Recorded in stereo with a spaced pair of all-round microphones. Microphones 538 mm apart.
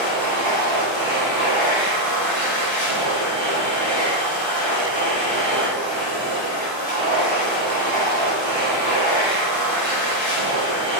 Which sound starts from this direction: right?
A machine running, at 0.0 s.